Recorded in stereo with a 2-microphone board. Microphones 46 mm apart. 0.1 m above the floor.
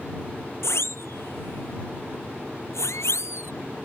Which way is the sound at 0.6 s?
70° left (ahead or behind).